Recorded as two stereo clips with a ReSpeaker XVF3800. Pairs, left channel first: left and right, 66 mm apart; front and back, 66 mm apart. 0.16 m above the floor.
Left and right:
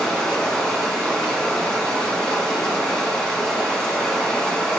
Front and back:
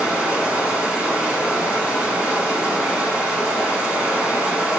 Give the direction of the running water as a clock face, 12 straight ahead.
7 o'clock.